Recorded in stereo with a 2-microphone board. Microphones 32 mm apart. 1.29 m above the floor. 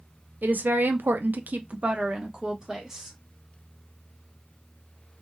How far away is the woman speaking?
About 0.7 m.